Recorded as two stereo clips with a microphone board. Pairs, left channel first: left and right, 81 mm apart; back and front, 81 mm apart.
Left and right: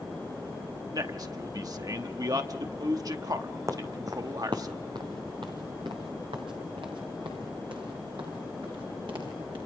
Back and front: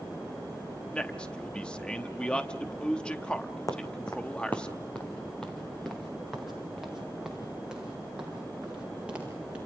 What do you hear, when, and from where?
0.9 s a man speaking: 105° right, 0.9 m
3.7 s footsteps: 135° right, 2.0 m; by 9.6 s 75° right, 7.5 m